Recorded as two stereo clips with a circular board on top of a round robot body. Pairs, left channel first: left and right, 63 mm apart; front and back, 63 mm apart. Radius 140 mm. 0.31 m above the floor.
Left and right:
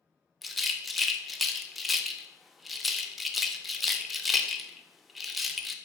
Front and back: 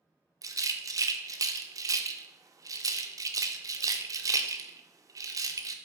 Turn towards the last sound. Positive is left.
turn(degrees=180)